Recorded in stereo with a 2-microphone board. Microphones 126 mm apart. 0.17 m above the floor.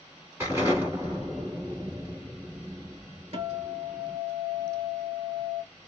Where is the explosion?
20° right (ahead or behind), 1.2 m.